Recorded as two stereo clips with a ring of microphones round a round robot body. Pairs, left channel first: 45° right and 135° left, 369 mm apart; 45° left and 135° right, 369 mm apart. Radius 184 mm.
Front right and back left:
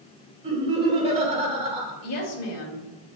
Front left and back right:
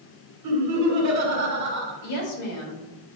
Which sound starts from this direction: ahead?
A woman speaking, at 2.0 s.